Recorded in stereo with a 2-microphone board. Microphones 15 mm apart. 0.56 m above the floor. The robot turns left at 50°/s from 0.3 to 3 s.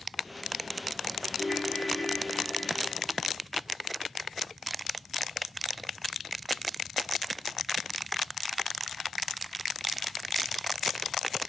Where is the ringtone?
120° right, 6 m; by 3.2 s 160° left, 6 m.